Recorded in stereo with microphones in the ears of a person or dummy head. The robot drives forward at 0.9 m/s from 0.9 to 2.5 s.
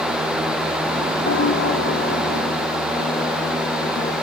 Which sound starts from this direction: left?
A piano, at 1.2 s.